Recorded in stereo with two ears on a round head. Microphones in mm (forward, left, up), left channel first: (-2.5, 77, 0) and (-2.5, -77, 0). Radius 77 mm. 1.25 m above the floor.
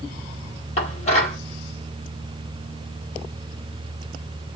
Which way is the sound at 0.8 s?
45° left (ahead or behind).